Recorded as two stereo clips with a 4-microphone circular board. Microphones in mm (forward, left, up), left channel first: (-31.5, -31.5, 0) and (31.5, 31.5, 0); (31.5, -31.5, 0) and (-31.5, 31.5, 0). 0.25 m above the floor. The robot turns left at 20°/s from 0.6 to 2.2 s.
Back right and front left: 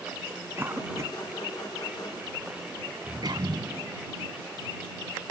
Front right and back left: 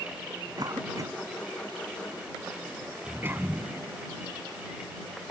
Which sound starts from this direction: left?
A cough, at 0.6 s.